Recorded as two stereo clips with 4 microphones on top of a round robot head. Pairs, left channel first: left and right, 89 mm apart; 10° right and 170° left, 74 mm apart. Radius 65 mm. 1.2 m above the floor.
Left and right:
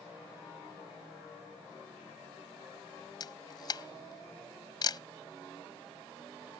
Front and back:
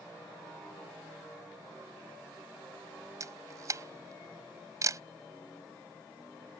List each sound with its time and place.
3.2 s a camera shutter: 130° left